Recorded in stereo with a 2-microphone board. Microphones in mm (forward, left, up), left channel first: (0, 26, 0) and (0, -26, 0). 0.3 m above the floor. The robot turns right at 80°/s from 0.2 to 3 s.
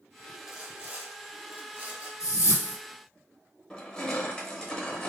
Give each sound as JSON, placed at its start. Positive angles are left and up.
{"t": 0.5, "sound": "sawing", "azimuth_deg": -170, "distance_m": 1.1}
{"t": 2.2, "sound": "a whoosh", "azimuth_deg": 100, "distance_m": 1.3}
{"t": 3.7, "sound": "crushing", "side_deg": 15, "distance_m": 0.8}